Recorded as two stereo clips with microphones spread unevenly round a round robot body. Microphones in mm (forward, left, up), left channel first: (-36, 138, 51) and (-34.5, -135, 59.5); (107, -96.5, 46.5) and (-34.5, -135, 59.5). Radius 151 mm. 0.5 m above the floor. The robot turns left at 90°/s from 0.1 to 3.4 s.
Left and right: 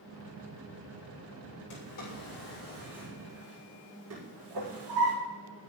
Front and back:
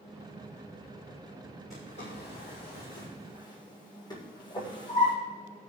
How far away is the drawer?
About 6.5 m.